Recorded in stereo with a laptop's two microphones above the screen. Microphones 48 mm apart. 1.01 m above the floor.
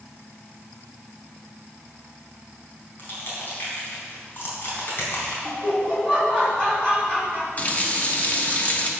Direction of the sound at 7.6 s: 35° left (ahead or behind).